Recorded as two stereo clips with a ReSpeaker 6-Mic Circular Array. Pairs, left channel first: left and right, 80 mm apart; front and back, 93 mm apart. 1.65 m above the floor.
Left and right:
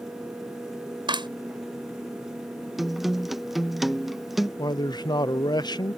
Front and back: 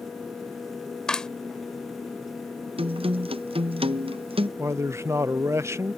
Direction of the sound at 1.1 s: 85° right.